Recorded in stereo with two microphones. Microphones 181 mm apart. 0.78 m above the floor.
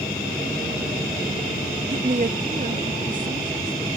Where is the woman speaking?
45° right (ahead or behind); by 3.9 s 50° right (ahead or behind).